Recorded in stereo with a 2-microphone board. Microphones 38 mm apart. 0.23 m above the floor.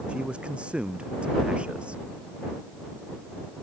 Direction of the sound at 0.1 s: 25° right (ahead or behind).